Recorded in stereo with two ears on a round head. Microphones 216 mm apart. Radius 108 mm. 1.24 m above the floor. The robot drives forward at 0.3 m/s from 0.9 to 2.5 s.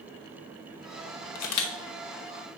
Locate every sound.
1.4 s a camera shutter: 75° left (ahead or behind), 1.0 m; by 1.7 s 70° left (ahead or behind), 1.0 m